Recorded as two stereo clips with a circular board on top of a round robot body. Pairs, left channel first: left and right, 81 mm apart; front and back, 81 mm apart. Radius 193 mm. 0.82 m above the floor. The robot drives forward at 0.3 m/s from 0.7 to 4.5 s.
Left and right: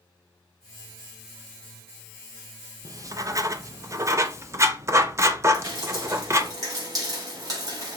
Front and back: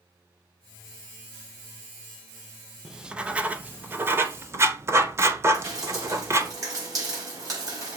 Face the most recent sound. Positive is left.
turn(degrees=-135)